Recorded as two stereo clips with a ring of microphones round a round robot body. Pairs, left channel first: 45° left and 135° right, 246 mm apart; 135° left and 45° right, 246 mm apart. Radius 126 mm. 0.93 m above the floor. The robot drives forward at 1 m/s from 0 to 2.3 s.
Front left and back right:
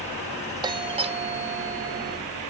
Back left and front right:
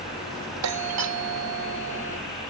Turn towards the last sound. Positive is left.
turn(degrees=-85)